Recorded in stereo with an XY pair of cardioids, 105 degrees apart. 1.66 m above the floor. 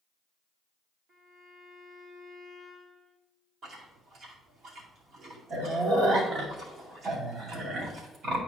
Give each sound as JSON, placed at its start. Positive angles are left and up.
{"t": 1.1, "sound": "a violin", "azimuth_deg": -65, "distance_m": 2.0}
{"t": 3.6, "sound": "chewing", "azimuth_deg": -65, "distance_m": 2.0}